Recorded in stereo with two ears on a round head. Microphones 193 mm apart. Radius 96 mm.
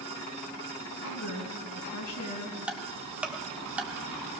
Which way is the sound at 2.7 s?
5° right (ahead or behind).